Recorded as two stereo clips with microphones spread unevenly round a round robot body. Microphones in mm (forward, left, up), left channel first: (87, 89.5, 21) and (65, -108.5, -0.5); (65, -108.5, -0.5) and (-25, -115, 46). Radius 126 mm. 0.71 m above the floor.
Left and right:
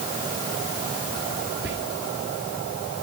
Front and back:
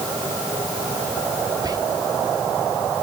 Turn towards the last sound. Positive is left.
turn(degrees=-115)